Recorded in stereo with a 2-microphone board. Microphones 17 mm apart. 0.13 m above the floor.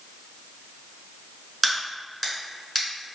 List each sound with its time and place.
1.6 s a crack: 5° right (ahead or behind), 1.2 m